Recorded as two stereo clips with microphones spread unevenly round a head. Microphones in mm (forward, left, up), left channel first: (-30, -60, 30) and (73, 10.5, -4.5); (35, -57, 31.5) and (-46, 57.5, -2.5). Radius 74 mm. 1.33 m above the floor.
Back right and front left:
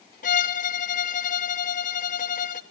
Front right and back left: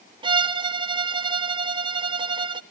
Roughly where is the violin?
Behind.